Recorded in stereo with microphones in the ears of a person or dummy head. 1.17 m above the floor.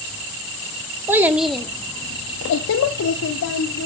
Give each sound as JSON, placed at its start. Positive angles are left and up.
{"t": 1.1, "sound": "a child speaking", "side_deg": -20, "distance_m": 1.5}